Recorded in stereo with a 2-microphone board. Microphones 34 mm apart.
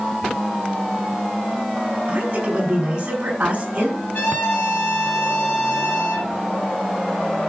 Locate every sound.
2.1 s a woman speaking: 30° right (ahead or behind), 7.5 m
4.1 s a trumpet: 80° left, 4.5 m